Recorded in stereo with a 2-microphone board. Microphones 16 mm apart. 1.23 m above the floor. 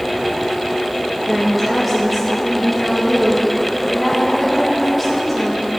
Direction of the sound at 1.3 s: 5° right (ahead or behind).